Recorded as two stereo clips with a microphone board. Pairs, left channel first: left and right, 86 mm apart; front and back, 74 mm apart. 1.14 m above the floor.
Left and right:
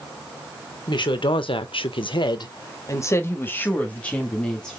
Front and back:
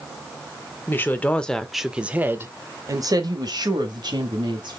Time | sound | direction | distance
0.9 | a woman speaking | 60° left | 1.0 m